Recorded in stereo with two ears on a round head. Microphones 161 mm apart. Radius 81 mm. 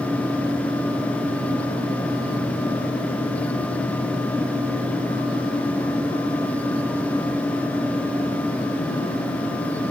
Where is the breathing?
No breathing in this recording.